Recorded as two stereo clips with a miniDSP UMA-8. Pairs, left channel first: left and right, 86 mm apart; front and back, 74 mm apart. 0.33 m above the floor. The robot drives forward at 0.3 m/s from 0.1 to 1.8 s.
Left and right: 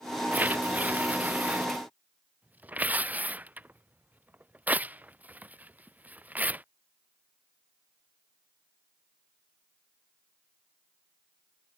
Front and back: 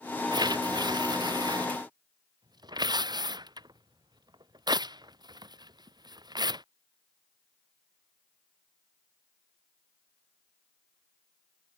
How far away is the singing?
No singing in this recording.